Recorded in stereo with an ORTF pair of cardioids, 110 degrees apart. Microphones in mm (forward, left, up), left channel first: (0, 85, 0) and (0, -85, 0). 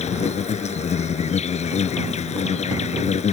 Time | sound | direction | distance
0.0 | an insect | 45° left | ?